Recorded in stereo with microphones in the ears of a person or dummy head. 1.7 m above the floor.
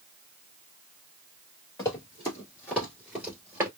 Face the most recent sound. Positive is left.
turn(degrees=-5)  # may be behind; listen again after turning